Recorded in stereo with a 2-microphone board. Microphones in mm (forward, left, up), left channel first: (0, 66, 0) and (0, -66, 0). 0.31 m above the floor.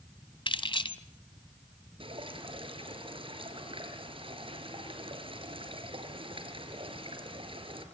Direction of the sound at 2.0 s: 45° right (ahead or behind).